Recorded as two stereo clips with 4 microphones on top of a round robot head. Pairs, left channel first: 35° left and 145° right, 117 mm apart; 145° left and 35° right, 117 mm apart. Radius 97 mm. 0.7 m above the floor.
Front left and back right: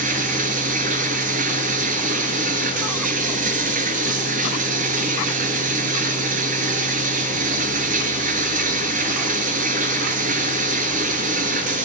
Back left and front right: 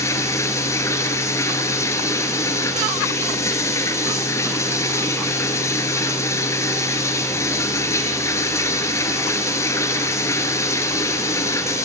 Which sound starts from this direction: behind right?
Running water, at 0.0 s.